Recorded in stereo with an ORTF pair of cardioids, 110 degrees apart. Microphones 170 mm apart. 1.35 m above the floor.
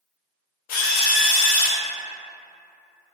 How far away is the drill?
About 0.6 m.